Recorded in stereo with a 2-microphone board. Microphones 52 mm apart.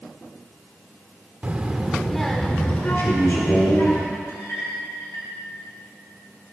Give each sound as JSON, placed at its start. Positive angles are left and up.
{"t": 1.4, "sound": "a child speaking", "side_deg": -30, "distance_m": 0.8}
{"t": 3.0, "sound": "a man speaking", "side_deg": 55, "distance_m": 2.0}
{"t": 4.3, "sound": "a clink", "side_deg": 60, "distance_m": 2.5}